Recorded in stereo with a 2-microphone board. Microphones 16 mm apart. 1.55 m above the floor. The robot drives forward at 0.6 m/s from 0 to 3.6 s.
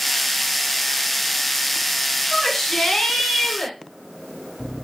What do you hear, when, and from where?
2.3 s a shout: 30° left (ahead or behind), 6.5 m